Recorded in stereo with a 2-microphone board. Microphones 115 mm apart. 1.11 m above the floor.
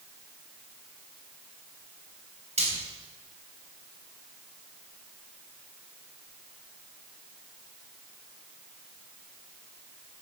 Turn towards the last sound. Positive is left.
turn(degrees=-80)